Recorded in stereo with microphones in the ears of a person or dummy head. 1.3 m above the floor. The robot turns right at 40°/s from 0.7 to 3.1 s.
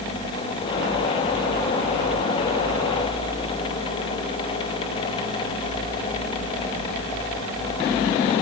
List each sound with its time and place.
Only background noise.